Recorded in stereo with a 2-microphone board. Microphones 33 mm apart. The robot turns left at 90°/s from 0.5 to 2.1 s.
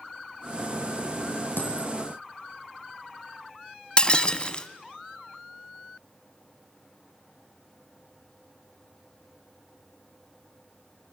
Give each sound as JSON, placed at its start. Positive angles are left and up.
{"t": 1.6, "sound": "a dropped coin", "azimuth_deg": 85, "distance_m": 5.5}
{"t": 4.0, "sound": "breaking glass", "side_deg": 25, "distance_m": 1.3}